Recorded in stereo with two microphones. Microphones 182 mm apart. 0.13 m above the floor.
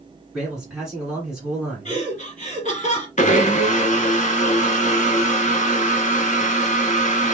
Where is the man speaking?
5° right (ahead or behind), 1.8 m.